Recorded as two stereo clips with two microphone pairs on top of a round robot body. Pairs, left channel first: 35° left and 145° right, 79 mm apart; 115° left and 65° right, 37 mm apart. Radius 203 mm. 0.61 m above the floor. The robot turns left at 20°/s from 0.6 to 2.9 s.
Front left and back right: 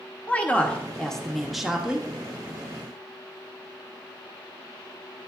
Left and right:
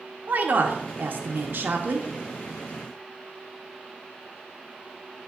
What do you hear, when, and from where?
0.3 s a woman speaking: 35° right, 0.8 m; by 2.1 s 65° right, 0.8 m